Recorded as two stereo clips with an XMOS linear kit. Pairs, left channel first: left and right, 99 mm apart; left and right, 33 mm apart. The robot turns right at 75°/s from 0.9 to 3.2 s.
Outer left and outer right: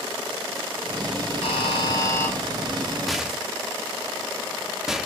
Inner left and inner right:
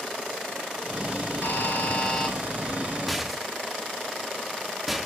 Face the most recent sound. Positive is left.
turn(degrees=-5)  # may be behind; listen again after turning